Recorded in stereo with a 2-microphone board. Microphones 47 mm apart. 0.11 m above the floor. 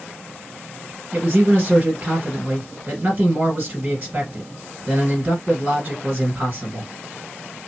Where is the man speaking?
30° right (ahead or behind), 2 m.